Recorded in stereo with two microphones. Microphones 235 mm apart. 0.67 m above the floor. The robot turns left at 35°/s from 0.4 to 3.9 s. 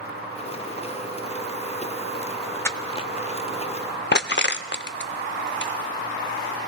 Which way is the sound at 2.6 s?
10° left (ahead or behind).